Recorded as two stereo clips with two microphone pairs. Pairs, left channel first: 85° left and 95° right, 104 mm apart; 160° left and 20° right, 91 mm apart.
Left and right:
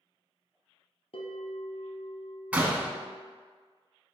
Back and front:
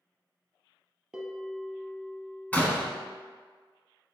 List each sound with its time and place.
1.1 s a bell: 70° left, 0.8 m
2.5 s a door slam: 155° right, 0.7 m